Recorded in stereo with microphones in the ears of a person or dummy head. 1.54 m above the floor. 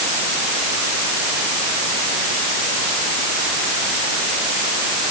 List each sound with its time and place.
Only background noise.